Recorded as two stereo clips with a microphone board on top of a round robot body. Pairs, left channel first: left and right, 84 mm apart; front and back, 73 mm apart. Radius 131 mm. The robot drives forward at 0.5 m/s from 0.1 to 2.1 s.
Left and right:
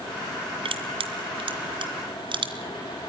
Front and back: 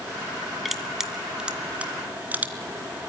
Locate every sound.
0.7 s crushing: 90° right, 1.9 m; by 2.5 s 110° right, 2 m